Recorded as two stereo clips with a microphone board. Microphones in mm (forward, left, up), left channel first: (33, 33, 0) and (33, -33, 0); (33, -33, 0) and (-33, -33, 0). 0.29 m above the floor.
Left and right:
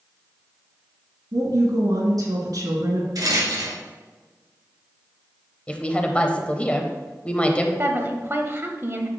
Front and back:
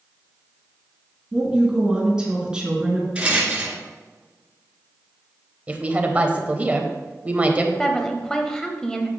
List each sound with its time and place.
1.3 s a woman speaking: 105° right, 3 m
3.1 s a rattle: 105° right, 2 m
5.7 s a woman speaking: 140° left, 1.0 m
7.8 s a woman speaking: 75° right, 1.1 m